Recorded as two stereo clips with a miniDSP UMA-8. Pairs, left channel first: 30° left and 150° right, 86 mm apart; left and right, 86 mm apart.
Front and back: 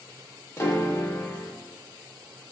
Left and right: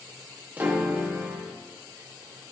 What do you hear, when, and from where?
0.6 s a piano: 25° right, 1.2 m